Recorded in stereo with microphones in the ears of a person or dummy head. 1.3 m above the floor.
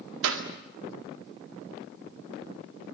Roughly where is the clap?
Right.